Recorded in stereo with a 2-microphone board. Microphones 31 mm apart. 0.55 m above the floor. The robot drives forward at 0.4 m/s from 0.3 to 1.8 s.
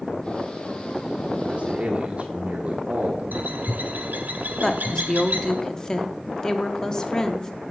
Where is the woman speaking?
20° left (ahead or behind), 0.7 m.